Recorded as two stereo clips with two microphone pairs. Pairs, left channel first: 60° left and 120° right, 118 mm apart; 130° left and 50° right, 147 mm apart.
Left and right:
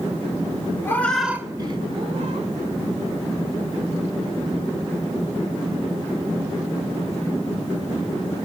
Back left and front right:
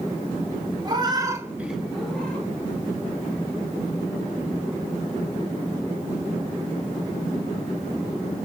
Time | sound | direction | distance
0.8 | a cat meowing | 5° right | 0.6 m